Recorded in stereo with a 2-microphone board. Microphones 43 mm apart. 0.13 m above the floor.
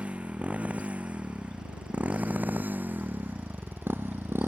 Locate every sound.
0.0 s a motorcycle: 30° right (ahead or behind); by 4.5 s 65° right (ahead or behind)